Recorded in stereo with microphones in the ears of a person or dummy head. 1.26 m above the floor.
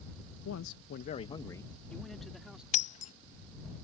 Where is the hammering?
I don't hear hammering.